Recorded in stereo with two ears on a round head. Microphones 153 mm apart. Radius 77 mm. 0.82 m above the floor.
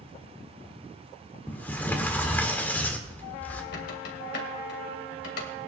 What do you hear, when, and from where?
1.5 s a sliding door: 10° left (ahead or behind), 1.5 m
3.7 s a squeak: 75° left (ahead or behind), 2.5 m